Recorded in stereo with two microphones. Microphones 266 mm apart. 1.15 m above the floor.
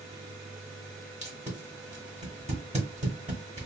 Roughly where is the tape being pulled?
Right.